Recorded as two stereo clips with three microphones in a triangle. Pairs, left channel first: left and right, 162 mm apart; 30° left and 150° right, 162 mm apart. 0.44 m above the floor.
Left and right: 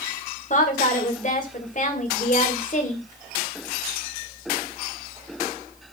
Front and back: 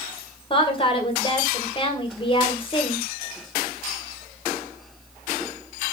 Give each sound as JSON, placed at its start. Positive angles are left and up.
{"t": 0.5, "sound": "a woman speaking", "azimuth_deg": 75, "distance_m": 2.0}